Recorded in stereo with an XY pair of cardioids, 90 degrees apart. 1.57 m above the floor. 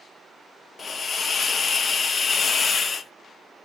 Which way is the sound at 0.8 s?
40° left.